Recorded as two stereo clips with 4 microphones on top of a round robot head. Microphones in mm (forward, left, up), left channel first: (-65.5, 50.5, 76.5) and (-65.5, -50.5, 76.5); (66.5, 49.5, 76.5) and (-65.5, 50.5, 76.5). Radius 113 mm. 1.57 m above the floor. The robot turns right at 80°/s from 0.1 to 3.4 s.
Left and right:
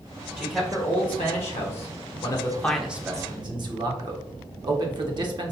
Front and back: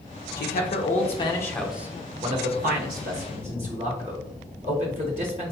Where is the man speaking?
15° right, 0.7 m; by 5.5 s 130° right, 0.7 m.